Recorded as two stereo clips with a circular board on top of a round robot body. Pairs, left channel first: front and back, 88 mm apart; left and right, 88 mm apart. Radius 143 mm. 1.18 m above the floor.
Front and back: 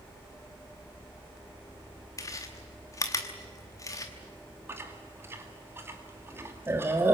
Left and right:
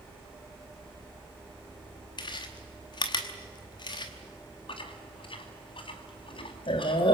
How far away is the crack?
I don't hear a crack.